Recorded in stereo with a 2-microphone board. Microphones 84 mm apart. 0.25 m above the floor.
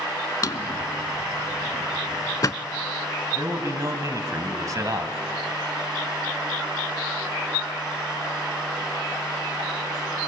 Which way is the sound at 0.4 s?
45° left (ahead or behind).